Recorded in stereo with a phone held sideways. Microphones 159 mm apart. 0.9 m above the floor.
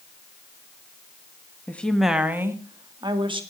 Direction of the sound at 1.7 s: 10° left (ahead or behind).